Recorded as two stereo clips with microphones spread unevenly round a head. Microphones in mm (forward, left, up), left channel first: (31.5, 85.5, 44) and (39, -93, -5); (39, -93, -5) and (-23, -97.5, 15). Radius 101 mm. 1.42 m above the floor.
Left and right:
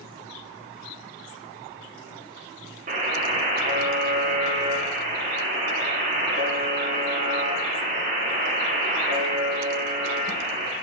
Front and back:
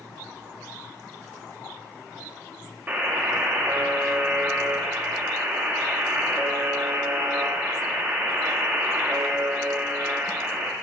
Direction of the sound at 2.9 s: 150° right.